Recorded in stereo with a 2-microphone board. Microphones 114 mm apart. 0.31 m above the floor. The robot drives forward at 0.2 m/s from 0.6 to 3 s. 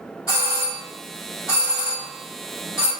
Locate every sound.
0.3 s a doorbell: 30° left (ahead or behind), 1.9 m